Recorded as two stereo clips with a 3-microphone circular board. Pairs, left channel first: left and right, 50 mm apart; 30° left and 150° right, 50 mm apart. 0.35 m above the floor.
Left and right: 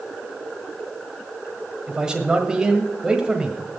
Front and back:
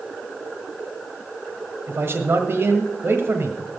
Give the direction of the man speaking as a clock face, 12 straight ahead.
5 o'clock.